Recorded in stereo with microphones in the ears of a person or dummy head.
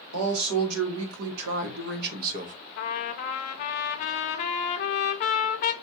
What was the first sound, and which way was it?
A man speaking, 85° right.